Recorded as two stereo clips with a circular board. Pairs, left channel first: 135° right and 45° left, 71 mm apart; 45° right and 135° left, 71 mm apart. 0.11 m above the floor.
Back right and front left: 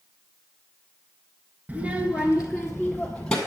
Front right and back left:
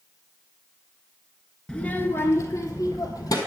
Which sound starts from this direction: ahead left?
A child speaking, at 1.7 s.